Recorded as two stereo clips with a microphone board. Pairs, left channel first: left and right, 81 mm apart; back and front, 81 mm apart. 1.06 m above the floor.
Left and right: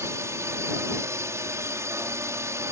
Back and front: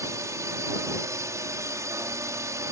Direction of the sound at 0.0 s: 40° right.